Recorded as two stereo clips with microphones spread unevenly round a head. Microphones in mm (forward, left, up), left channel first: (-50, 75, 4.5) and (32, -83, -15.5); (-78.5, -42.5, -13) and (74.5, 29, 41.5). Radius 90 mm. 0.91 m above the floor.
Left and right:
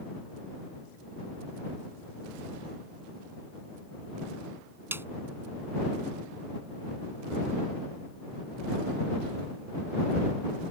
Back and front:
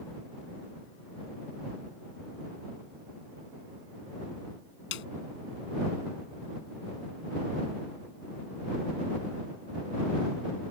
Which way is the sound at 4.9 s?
140° right.